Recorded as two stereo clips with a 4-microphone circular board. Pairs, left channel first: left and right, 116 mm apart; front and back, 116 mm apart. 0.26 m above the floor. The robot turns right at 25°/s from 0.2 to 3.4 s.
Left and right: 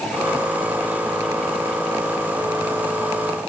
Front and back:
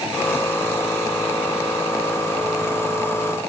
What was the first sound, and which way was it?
Only background noise.